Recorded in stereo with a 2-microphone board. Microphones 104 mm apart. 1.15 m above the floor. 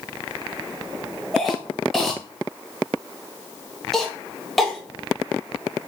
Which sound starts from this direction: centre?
A cough, at 1.3 s.